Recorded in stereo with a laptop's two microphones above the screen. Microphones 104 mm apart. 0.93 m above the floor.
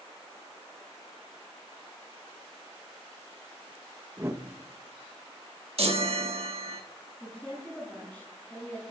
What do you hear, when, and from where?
4.2 s a whoosh: 25° right (ahead or behind), 1.2 m
5.8 s a chime: 65° right (ahead or behind), 1.7 m
7.2 s a woman speaking: 10° left (ahead or behind), 9 m